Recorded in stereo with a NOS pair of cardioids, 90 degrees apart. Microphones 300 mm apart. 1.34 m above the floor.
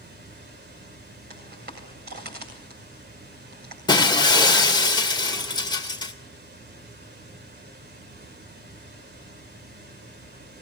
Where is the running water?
35° right, 3.5 m.